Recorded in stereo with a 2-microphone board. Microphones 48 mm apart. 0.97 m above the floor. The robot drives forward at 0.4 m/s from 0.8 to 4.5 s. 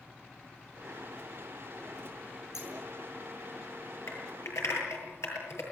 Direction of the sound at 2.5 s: 75° left (ahead or behind).